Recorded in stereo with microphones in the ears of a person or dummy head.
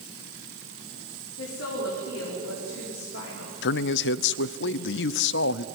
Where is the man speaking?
70° left (ahead or behind), 0.7 m.